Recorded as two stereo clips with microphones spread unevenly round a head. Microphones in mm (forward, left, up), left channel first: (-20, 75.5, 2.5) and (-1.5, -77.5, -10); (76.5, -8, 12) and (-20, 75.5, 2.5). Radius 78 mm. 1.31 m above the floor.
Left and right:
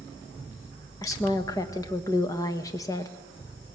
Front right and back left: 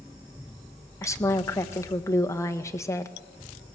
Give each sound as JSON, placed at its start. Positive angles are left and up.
{"t": 1.0, "sound": "a woman speaking", "azimuth_deg": 25, "distance_m": 1.5}